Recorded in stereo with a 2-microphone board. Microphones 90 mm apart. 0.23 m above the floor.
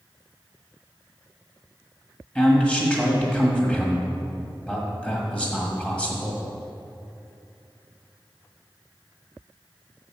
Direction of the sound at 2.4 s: 15° left (ahead or behind).